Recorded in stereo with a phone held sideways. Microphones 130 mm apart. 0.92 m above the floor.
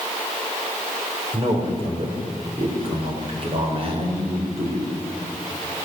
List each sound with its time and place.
1.3 s a man speaking: 40° right (ahead or behind), 3.5 m